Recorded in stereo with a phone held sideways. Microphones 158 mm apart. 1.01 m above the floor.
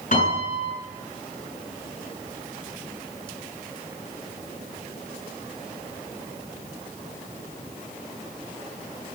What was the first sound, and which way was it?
A piano, 55° left (ahead or behind).